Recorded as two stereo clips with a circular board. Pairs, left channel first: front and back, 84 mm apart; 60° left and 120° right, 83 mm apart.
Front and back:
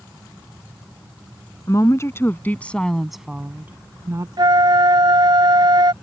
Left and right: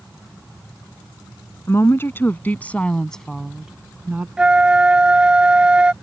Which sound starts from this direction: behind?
A flute, at 4.4 s.